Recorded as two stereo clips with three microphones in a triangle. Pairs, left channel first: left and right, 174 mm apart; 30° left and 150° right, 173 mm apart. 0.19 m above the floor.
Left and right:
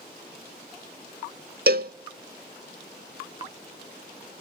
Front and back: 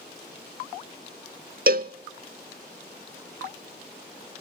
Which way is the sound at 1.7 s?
115° right.